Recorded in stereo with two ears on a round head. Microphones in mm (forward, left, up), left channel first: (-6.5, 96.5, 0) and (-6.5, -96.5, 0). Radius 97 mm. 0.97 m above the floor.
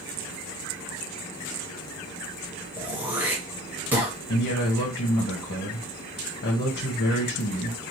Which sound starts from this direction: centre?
Throat clearing, at 2.8 s.